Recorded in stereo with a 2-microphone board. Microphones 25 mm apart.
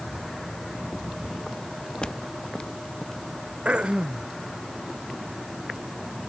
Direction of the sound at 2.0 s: 40° left (ahead or behind).